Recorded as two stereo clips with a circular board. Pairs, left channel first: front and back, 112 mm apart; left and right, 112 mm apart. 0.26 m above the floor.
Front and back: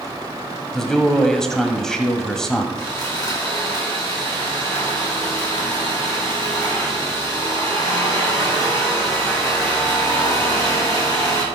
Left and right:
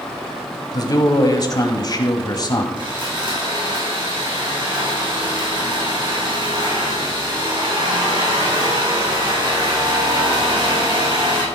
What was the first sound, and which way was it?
A man speaking, 80° left.